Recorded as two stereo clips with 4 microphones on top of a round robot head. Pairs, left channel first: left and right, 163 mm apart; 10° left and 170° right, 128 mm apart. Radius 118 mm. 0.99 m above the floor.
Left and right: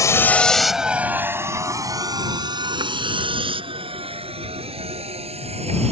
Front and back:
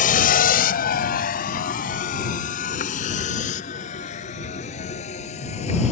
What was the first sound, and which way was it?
A vehicle, 20° left.